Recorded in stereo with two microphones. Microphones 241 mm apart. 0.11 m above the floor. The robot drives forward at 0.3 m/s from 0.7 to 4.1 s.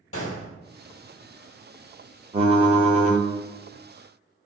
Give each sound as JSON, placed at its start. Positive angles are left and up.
{"t": 0.1, "sound": "a gunshot", "side_deg": 65, "distance_m": 1.0}
{"t": 2.3, "sound": "typing on a keyboard", "side_deg": -25, "distance_m": 0.8}